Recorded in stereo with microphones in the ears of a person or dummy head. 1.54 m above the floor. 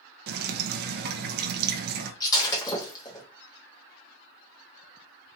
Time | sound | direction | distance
0.3 | dripping | 55° right (ahead or behind) | 0.7 m
2.2 | breaking glass | 20° left (ahead or behind) | 1.5 m